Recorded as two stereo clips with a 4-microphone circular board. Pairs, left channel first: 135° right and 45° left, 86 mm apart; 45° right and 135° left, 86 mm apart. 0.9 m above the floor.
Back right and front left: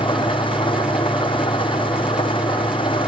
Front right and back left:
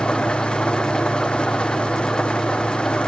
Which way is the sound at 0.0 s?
125° right.